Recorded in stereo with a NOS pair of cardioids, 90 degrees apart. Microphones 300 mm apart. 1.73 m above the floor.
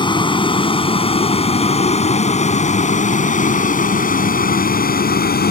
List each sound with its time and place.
0.0 s a vehicle: 15° left; by 5.5 s 35° left